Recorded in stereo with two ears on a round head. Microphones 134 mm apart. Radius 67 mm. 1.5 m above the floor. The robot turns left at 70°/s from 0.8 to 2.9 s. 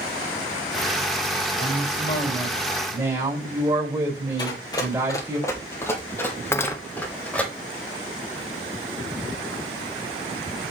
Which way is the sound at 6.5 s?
15° left (ahead or behind).